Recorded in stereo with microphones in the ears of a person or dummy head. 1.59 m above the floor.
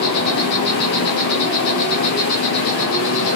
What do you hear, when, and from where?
0.0 s an insect: 55° left (ahead or behind), 1.0 m